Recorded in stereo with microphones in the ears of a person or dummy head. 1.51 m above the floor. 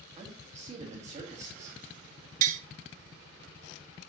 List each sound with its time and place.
0.2 s a man speaking: 35° right (ahead or behind), 2.5 m
2.4 s tapping: 50° right (ahead or behind), 0.9 m